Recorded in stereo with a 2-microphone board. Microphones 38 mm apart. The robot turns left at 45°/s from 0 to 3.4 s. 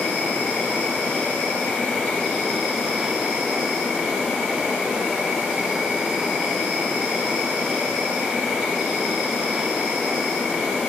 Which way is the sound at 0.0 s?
125° left.